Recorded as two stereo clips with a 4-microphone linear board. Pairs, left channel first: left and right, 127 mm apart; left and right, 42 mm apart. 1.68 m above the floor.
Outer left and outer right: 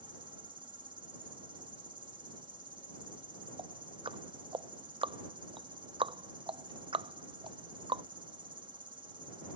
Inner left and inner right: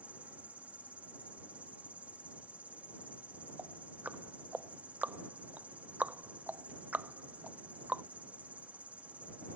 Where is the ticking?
45° right (ahead or behind).